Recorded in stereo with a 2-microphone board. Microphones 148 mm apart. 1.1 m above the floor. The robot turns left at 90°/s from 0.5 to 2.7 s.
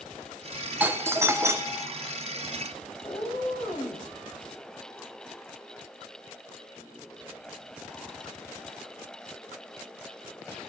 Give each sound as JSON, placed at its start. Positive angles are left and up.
{"t": 0.8, "sound": "a doorbell", "side_deg": -10, "distance_m": 0.7}
{"t": 3.0, "sound": "a cat meowing", "side_deg": 30, "distance_m": 3.5}